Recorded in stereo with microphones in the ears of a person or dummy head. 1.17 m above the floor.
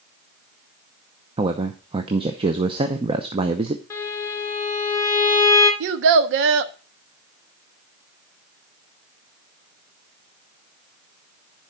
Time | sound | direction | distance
1.4 | a man speaking | 30° right (ahead or behind) | 0.8 m
3.9 | a violin | 15° left (ahead or behind) | 3 m
5.8 | a child speaking | 70° right (ahead or behind) | 1.0 m